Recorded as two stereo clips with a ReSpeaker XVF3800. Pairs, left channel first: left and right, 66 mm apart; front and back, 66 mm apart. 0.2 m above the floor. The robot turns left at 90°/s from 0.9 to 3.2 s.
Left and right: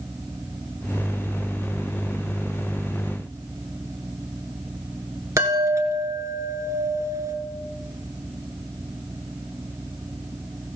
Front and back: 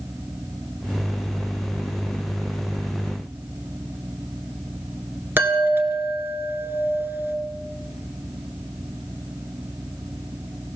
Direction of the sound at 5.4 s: 125° right.